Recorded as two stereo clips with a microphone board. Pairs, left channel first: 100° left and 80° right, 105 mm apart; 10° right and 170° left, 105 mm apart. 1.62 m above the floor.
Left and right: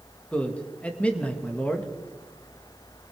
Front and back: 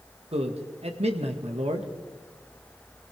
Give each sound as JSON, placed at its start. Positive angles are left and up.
{"t": 0.3, "sound": "a man speaking", "azimuth_deg": 180, "distance_m": 1.8}